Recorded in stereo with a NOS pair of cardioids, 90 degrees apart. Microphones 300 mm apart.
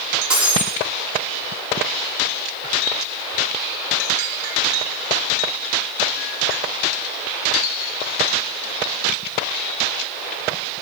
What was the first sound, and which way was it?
Breaking glass, 5° right.